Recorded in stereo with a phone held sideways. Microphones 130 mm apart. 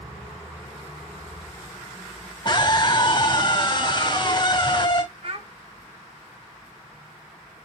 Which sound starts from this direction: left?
A scream, at 2.5 s.